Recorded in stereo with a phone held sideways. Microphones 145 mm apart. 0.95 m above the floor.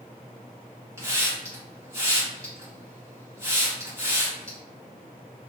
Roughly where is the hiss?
Centre.